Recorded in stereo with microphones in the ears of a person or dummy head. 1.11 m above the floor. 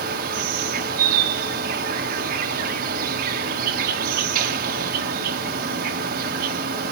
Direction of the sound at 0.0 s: 55° right (ahead or behind).